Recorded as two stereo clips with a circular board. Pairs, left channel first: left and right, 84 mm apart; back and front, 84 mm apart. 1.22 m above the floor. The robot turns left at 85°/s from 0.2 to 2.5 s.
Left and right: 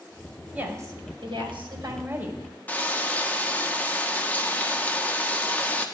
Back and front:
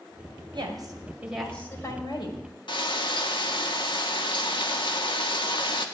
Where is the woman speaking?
20° right, 5.5 m; by 2.4 s 175° right, 5.5 m.